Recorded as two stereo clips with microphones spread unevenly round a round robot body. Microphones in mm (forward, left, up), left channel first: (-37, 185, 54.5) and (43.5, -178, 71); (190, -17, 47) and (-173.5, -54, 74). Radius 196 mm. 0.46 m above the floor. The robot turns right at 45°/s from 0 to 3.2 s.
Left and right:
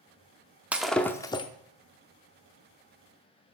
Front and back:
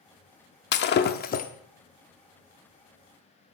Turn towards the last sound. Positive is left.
turn(degrees=120)